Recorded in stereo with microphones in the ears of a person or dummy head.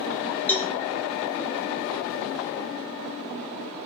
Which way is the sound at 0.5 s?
10° left (ahead or behind).